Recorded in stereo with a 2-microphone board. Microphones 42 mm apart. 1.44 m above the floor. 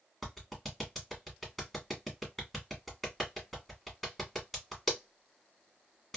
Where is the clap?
Centre (ahead or behind), 1.3 m.